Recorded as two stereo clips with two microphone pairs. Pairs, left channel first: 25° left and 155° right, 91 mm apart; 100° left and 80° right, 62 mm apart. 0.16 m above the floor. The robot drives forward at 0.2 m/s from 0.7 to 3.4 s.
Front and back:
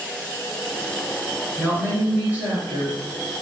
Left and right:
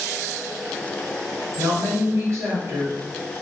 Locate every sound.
1.6 s a woman speaking: 85° right, 1.8 m; by 3.0 s 95° right, 1.8 m